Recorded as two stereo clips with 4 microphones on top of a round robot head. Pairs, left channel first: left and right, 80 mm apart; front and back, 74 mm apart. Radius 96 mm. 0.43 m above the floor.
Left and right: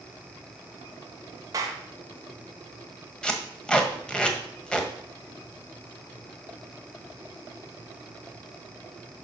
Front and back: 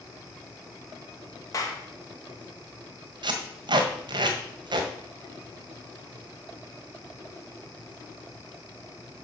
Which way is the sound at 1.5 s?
45° right.